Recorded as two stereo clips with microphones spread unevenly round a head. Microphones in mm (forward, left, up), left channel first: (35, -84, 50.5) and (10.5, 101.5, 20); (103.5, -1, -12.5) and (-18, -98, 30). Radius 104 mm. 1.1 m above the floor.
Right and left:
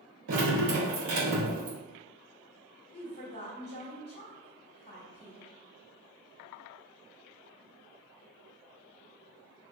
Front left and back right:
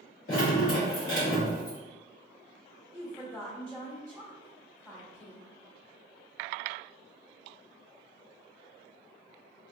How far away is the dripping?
About 1.6 m.